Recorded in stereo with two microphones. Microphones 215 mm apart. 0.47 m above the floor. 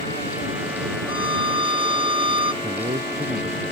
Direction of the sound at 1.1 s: 85° left.